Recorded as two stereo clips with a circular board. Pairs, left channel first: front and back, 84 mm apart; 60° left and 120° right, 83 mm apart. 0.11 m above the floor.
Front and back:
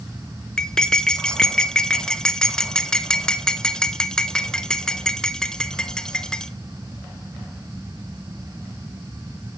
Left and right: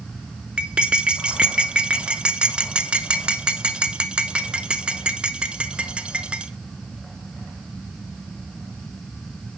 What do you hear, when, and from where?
0.6 s cutlery clinking: 65° right, 0.6 m